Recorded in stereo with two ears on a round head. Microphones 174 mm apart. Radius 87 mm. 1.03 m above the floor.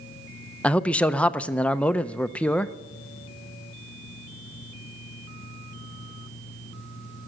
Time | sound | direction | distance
0.6 | a man speaking | 5° left (ahead or behind) | 0.5 m